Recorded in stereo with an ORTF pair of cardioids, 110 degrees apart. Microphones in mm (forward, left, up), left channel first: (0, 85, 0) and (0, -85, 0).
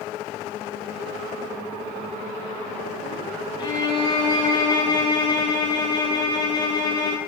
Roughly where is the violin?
Ahead left.